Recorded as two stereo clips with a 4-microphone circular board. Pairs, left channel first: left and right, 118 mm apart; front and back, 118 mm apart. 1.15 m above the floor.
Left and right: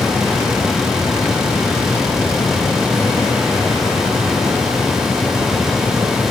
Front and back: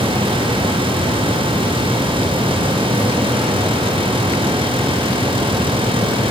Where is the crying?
I don't hear crying.